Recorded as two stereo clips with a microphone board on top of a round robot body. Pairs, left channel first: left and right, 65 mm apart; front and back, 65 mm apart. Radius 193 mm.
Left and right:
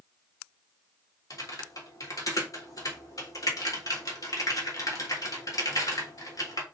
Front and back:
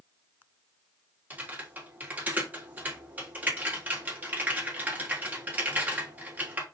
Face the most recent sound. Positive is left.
turn(degrees=120)